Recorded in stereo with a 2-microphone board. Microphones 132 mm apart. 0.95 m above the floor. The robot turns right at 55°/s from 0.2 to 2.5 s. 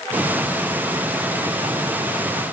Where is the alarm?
I don't hear an alarm.